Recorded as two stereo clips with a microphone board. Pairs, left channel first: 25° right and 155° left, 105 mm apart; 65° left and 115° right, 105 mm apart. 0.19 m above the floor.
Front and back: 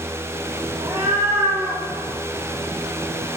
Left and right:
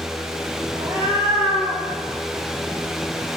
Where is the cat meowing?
170° right, 3 m; by 3.3 s 150° left, 2 m.